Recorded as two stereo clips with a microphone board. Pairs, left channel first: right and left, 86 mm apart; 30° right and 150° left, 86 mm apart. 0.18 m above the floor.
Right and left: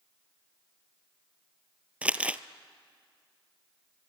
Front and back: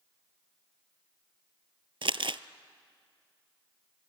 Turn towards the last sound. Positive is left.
turn(degrees=165)